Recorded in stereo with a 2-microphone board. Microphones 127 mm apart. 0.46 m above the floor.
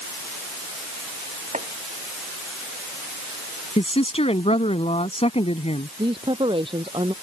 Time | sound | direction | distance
1.5 | chopping | 85° right | ?
3.8 | a woman speaking | 60° left (ahead or behind) | ?
6.0 | a woman speaking | 45° right (ahead or behind) | ?